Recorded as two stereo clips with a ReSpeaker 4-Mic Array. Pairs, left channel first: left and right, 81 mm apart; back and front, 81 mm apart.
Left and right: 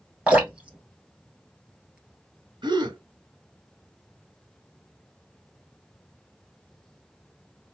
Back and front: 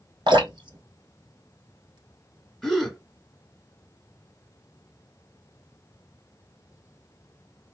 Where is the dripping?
15° right, 1.5 m.